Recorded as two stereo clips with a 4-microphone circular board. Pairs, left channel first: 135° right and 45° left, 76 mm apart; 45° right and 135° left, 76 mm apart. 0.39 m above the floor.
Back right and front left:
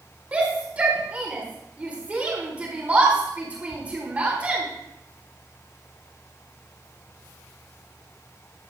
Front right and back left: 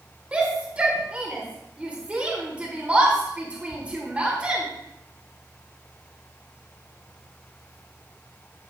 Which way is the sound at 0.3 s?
85° left.